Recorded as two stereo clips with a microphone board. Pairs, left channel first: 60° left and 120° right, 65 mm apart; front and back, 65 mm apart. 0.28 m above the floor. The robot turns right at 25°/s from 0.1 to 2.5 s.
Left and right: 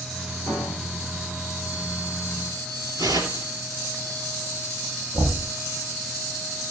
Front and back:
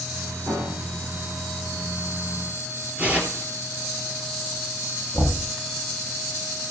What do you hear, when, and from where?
0.5 s a piano: 125° left, 8 m; by 1.3 s 145° left, 8 m
3.0 s tearing paper: 110° right, 2 m
5.1 s knocking: 135° right, 5.5 m